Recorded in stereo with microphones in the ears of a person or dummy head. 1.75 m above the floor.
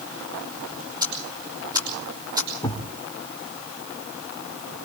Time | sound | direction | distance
1.0 | ticking | 30° right (ahead or behind) | 5.5 m
2.6 | a thud | 15° left (ahead or behind) | 2.5 m